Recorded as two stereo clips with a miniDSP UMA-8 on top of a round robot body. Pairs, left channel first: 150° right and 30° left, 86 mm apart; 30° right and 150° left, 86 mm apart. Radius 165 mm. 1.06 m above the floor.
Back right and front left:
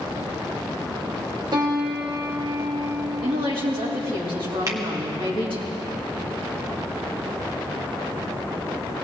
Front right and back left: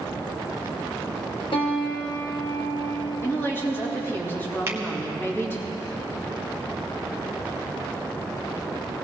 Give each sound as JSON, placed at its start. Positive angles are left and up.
{"t": 1.5, "sound": "a piano", "azimuth_deg": -10, "distance_m": 1.5}
{"t": 3.2, "sound": "a woman speaking", "azimuth_deg": 35, "distance_m": 3.0}
{"t": 4.7, "sound": "a finger snap", "azimuth_deg": 85, "distance_m": 1.2}